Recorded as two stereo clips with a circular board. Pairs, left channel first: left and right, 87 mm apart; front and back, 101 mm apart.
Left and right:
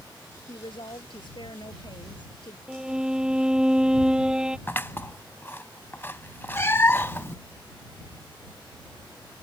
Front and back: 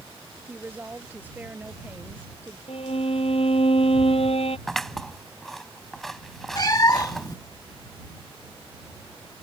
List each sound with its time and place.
0.5 s a woman speaking: 105° left
2.7 s a violin: 10° right
4.7 s scissors: 85° left
6.5 s a cat meowing: 35° left